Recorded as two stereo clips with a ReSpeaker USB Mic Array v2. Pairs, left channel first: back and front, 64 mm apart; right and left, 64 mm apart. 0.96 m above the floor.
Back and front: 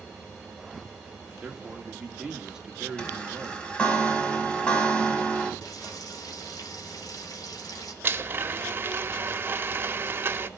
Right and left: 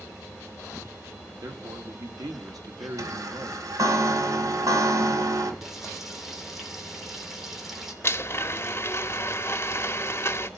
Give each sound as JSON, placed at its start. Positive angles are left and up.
{"t": 1.4, "sound": "a man speaking", "azimuth_deg": 80, "distance_m": 2.0}
{"t": 3.0, "sound": "a chime", "azimuth_deg": 105, "distance_m": 2.0}
{"t": 5.6, "sound": "frying", "azimuth_deg": 175, "distance_m": 2.5}
{"t": 8.0, "sound": "a blender", "azimuth_deg": -50, "distance_m": 0.7}